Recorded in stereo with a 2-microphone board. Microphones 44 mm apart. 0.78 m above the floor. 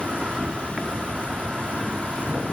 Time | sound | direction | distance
0.0 | an insect | 25° right (ahead or behind) | 1.0 m